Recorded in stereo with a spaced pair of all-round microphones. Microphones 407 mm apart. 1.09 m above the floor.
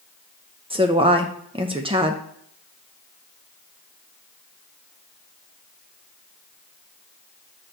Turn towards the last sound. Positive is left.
turn(degrees=-15)  # may be behind; listen again after turning